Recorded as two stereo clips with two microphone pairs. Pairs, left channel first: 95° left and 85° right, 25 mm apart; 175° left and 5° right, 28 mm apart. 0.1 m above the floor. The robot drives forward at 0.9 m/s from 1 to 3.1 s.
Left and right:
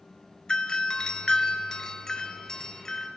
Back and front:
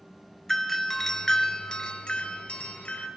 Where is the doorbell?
105° left, 1.8 m; by 3.1 s 155° left, 2.5 m.